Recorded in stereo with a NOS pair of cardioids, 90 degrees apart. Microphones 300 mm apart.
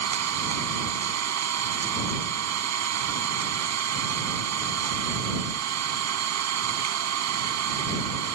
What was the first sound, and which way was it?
An engine running, 60° right.